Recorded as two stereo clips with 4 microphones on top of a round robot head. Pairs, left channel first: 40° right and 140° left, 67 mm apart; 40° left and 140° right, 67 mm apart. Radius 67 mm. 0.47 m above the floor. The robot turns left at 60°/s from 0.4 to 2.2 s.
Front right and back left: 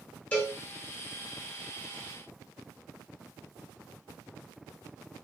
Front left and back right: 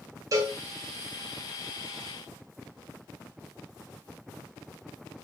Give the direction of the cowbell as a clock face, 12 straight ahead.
4 o'clock.